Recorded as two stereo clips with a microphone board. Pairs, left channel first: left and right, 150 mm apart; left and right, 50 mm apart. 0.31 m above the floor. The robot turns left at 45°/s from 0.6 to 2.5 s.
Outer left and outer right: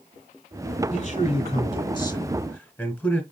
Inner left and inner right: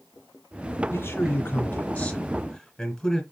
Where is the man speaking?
85° left, 1.4 m; by 3.2 s 15° left, 1.4 m.